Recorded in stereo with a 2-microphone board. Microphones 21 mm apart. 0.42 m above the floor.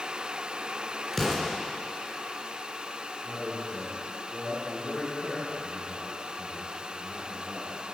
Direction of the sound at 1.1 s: 5° left (ahead or behind).